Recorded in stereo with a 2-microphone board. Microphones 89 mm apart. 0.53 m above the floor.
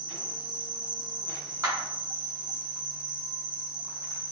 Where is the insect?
55° right (ahead or behind), 1.0 m.